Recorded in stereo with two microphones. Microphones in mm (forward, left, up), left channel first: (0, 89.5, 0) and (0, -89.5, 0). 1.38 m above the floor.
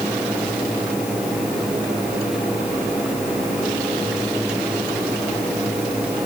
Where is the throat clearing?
I don't hear throat clearing.